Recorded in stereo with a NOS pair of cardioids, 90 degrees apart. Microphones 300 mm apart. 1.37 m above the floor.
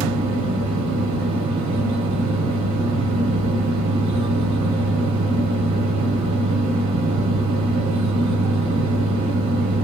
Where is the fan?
65° right, 0.9 m.